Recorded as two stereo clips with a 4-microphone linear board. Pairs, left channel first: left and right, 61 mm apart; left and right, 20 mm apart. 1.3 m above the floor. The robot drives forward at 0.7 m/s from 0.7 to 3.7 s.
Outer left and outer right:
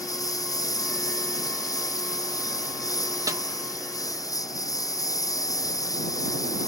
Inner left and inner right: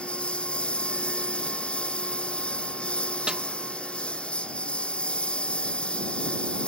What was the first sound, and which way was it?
A lawn mower, 85° left.